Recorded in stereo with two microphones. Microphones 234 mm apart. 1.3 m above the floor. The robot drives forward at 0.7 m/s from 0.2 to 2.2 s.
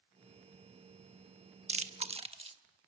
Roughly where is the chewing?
Right.